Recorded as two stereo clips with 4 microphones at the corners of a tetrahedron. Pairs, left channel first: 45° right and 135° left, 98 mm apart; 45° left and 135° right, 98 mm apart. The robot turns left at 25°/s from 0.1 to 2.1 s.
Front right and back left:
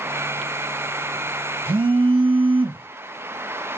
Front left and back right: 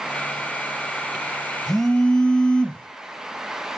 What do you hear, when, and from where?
1.7 s a phone buzzing: 135° left, 0.5 m; by 2.9 s 125° left, 0.5 m